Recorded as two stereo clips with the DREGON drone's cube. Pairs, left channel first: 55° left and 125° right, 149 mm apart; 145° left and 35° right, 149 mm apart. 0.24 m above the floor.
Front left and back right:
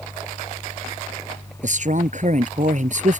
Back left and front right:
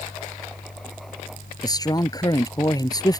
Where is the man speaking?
150° right.